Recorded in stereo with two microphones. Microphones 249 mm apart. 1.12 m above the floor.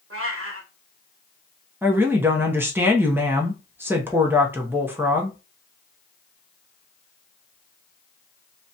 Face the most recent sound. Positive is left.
turn(degrees=-10)  # may be behind; listen again after turning